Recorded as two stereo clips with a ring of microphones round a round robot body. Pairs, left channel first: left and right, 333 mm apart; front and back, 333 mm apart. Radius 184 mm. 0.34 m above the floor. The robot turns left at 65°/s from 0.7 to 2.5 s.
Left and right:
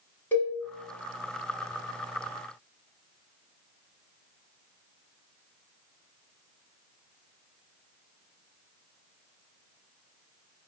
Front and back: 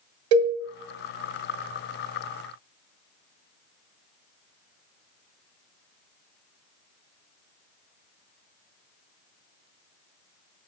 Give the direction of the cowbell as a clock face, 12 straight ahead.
6 o'clock.